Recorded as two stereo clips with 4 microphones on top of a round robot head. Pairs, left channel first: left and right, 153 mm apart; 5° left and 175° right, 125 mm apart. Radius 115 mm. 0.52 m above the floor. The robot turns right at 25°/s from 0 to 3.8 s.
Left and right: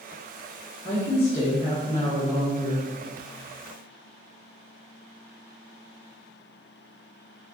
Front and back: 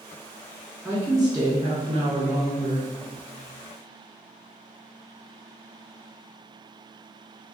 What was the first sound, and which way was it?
A woman speaking, 100° left.